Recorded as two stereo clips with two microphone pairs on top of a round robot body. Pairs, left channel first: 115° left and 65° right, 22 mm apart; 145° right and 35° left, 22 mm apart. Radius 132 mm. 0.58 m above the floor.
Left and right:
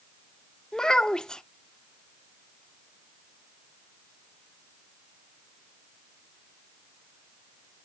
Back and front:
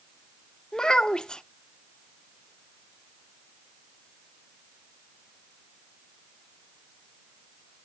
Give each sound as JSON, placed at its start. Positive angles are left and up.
{"t": 0.7, "sound": "a child speaking", "azimuth_deg": 165, "distance_m": 0.7}